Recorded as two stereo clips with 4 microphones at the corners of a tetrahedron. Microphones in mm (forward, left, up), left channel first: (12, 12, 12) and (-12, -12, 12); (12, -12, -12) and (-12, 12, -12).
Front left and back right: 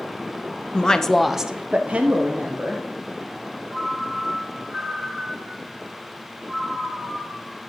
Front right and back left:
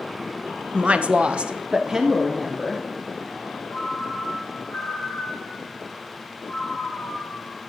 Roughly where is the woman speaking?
Left.